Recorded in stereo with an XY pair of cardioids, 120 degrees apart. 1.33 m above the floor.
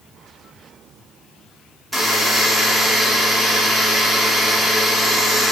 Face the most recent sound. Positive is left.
turn(degrees=-5)